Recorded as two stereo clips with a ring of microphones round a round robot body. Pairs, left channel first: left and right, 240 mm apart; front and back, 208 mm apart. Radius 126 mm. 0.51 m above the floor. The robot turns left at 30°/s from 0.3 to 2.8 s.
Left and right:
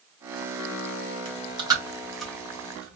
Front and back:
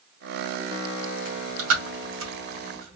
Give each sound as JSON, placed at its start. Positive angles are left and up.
{"t": 1.2, "sound": "chewing", "azimuth_deg": -150, "distance_m": 2.0}